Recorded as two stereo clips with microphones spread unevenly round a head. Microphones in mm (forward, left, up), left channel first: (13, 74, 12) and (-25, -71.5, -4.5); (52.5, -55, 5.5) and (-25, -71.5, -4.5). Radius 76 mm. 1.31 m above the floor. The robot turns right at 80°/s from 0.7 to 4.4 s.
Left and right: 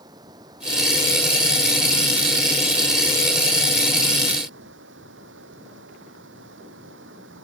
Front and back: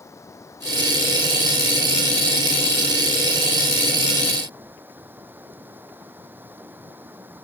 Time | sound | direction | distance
0.0 | running water | 40° right | ?